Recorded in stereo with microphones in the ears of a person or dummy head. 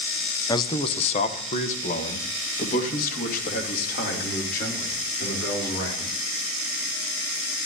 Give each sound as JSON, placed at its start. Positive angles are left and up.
{"t": 0.5, "sound": "a man speaking", "side_deg": 25, "distance_m": 0.7}